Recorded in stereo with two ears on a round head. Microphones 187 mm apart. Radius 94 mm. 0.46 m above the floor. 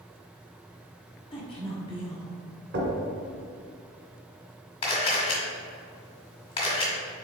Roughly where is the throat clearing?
I don't hear throat clearing.